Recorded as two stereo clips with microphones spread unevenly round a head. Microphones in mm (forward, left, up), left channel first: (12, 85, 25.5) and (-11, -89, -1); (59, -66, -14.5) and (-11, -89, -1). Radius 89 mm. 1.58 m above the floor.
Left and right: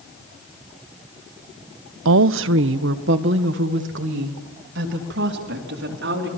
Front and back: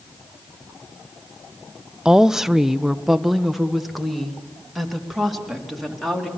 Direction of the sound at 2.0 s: 80° right.